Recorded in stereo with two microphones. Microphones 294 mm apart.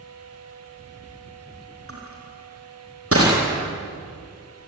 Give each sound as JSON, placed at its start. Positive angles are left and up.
{"t": 1.9, "sound": "crushing", "side_deg": -50, "distance_m": 6.0}